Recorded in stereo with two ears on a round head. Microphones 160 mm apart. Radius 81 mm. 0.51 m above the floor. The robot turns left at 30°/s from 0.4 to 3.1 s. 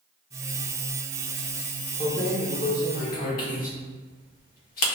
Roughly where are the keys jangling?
Left.